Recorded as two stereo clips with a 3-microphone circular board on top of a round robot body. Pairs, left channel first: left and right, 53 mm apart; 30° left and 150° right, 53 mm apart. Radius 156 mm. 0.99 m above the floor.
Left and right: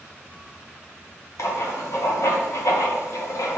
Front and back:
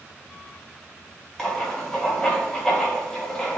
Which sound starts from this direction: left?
Writing, at 1.4 s.